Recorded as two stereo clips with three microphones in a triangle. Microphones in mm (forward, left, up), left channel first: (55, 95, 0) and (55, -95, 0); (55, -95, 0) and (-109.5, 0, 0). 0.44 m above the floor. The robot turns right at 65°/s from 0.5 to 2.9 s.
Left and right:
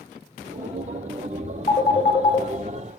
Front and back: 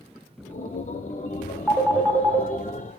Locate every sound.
1.7 s a phone ringing: 70° left, 0.6 m; by 2.5 s 120° left, 0.6 m